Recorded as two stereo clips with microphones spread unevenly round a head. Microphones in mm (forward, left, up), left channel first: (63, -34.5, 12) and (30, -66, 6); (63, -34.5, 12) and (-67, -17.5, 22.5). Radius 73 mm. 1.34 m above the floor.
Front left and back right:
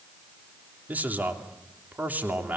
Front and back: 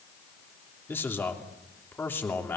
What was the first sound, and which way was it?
A man speaking, 80° right.